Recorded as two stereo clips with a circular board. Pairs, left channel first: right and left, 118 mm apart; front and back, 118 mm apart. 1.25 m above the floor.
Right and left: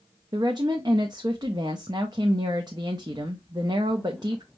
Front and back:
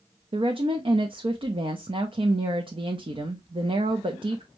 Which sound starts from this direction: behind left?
A woman speaking, at 0.3 s.